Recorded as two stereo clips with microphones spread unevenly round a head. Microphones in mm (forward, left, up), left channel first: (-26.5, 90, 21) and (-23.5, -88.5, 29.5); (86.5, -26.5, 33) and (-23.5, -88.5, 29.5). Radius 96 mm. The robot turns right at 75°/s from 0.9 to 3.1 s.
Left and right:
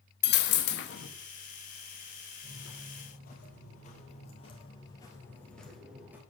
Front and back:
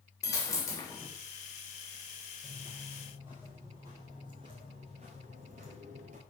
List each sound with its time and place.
0.2 s a dropped coin: 100° left, 0.9 m; by 1.1 s 120° left, 0.9 m
2.4 s footsteps: 70° left, 3 m; by 6.2 s 165° right, 1.7 m